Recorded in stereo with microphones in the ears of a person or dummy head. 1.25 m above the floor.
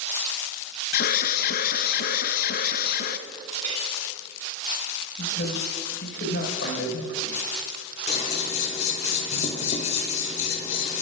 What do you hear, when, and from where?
0.9 s an alarm: 60° left (ahead or behind), 0.7 m
3.6 s a clink: 50° right (ahead or behind), 3.5 m
5.2 s a man speaking: 70° left (ahead or behind), 4.5 m
8.1 s scissors: 45° left (ahead or behind), 1.9 m